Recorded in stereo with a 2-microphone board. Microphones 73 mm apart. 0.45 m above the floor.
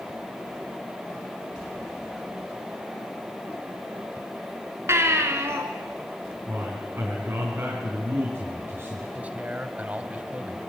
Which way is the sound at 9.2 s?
20° right (ahead or behind).